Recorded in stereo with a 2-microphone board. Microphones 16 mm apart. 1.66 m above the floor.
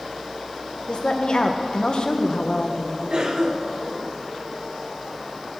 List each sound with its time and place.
0.9 s a woman speaking: 55° left (ahead or behind), 0.9 m
3.1 s a cough: 40° right (ahead or behind), 1.2 m